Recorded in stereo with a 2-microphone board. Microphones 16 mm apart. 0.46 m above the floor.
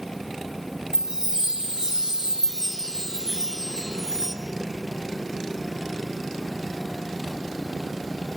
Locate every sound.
0.9 s a chime: 35° right (ahead or behind), 3 m